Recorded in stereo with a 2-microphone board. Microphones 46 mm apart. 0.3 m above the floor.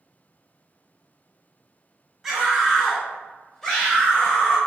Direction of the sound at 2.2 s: Centre (ahead or behind).